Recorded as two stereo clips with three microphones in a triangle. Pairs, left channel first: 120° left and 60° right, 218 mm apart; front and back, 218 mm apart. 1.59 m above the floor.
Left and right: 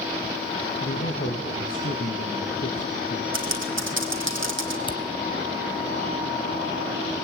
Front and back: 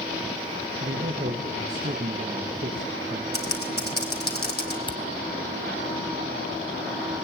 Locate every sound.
0.8 s a man speaking: 140° left, 2.5 m
3.3 s typing on a keyboard: 40° right, 3 m
4.9 s a camera shutter: 60° left, 1.0 m